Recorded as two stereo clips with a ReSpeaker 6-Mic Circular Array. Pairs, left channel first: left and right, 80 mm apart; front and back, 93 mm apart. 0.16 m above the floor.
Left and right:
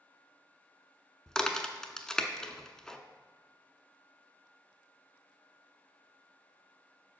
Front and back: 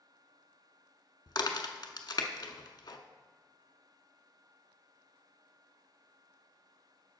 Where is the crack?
10° left, 0.7 m.